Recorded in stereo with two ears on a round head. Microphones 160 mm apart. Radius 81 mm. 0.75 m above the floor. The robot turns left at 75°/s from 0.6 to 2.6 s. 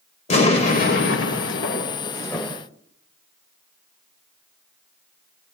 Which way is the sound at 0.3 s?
140° left.